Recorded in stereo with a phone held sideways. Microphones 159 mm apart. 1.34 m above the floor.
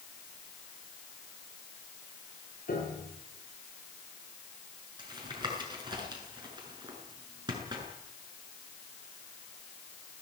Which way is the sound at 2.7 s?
60° left (ahead or behind).